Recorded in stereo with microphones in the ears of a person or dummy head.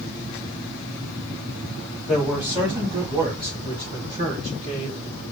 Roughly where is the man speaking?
Centre.